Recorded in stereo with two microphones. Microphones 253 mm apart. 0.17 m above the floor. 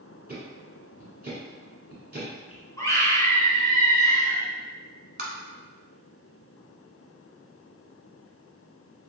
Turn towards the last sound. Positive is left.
turn(degrees=-40)  # may be behind; listen again after turning